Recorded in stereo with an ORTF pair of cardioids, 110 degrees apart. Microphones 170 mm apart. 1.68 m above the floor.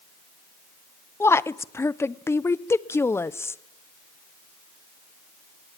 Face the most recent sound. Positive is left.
turn(degrees=15)